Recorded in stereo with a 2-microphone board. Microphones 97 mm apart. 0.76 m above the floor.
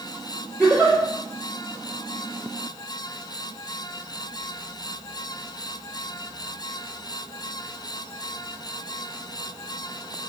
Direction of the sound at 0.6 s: 10° right (ahead or behind).